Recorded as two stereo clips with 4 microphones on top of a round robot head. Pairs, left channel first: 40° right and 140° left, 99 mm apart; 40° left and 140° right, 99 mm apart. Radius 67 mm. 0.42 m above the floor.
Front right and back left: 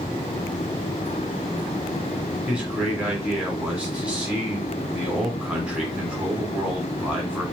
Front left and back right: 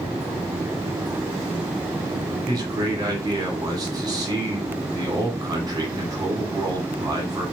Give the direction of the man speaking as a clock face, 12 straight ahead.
5 o'clock.